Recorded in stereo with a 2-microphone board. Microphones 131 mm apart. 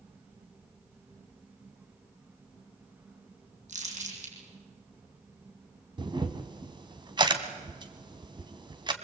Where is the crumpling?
65° right (ahead or behind), 7 m.